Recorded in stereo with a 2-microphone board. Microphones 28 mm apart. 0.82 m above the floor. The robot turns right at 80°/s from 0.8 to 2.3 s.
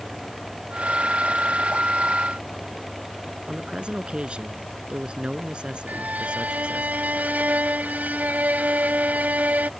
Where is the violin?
70° right (ahead or behind).